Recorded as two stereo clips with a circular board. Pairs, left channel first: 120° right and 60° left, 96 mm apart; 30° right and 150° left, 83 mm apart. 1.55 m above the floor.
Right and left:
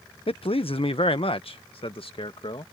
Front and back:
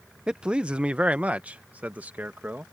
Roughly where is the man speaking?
Behind right.